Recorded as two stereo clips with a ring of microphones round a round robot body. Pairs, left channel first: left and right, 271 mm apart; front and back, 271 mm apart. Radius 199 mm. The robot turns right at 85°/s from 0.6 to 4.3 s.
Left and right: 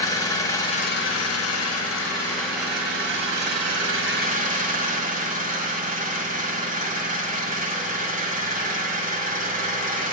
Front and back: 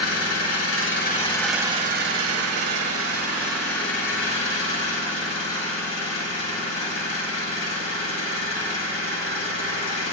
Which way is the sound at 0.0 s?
15° left.